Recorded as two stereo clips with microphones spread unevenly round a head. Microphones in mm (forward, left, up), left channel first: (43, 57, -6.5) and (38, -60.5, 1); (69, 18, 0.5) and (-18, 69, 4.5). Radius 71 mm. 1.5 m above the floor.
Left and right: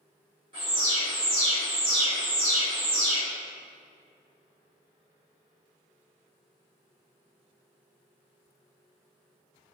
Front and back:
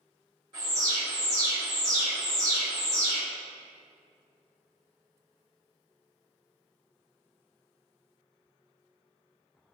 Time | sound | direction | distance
0.5 | an alarm | 150° right | 1.1 m